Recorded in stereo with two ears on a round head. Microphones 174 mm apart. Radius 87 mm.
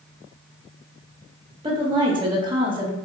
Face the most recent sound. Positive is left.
turn(degrees=-25)  # may be behind; listen again after turning